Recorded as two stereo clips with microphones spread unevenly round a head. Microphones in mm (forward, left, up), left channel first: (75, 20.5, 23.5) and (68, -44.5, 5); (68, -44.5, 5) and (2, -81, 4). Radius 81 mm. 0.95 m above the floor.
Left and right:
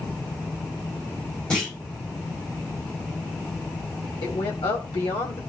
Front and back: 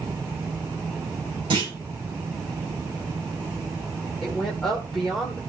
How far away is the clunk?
About 5 m.